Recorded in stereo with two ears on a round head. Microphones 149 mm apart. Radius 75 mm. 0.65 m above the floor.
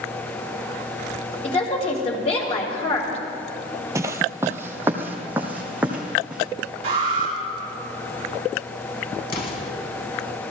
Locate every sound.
1.4 s a woman speaking: 40° left (ahead or behind), 3.5 m
4.0 s footsteps: 20° right (ahead or behind), 0.7 m; by 6.4 s 10° right (ahead or behind), 2.5 m
6.8 s an alarm: 35° right (ahead or behind), 5.5 m
9.3 s an explosion: 65° left (ahead or behind), 3.5 m